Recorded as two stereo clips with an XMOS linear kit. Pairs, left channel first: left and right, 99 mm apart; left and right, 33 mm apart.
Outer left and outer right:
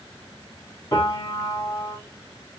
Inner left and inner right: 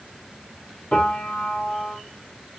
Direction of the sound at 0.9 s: 40° left (ahead or behind).